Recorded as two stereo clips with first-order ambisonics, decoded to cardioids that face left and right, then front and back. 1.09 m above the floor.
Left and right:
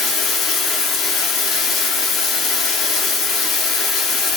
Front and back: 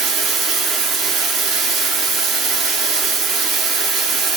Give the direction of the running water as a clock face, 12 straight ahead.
7 o'clock.